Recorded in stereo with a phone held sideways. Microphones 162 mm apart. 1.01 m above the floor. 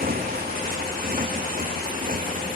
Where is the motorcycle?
65° right (ahead or behind); by 2.6 s 60° right (ahead or behind).